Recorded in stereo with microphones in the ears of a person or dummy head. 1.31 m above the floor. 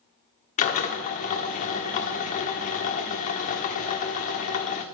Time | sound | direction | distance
0.6 | a drill | 40° left (ahead or behind) | 1.3 m